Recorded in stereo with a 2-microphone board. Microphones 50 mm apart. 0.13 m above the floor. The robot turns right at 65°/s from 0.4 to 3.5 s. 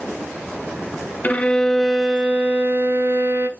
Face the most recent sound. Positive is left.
turn(degrees=-75)